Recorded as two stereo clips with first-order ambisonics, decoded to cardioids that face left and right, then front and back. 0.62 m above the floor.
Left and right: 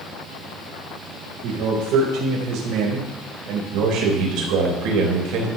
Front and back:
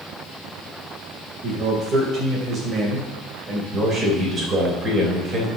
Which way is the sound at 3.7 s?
110° right.